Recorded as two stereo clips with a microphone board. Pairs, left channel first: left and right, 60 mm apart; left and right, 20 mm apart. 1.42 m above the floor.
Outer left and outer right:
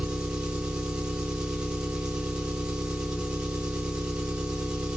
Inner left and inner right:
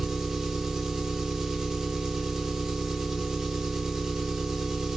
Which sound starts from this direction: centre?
An engine running, at 0.0 s.